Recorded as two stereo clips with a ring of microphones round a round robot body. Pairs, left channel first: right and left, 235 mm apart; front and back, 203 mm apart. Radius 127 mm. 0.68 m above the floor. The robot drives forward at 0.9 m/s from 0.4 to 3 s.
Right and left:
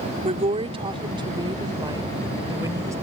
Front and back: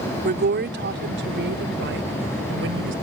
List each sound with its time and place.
0.2 s a woman speaking: 150° left; by 2.9 s 165° left